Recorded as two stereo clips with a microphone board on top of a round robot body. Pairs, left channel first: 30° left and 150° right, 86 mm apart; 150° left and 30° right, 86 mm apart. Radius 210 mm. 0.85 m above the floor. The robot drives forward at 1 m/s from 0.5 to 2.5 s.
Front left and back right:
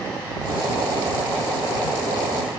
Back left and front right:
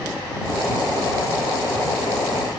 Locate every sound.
Only background noise.